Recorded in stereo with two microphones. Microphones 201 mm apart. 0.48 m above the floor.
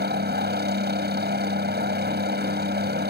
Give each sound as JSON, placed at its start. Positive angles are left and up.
{"t": 0.0, "sound": "a helicopter", "side_deg": -60}